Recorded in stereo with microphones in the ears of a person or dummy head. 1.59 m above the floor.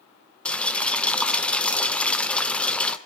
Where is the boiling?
5° left (ahead or behind), 1.0 m.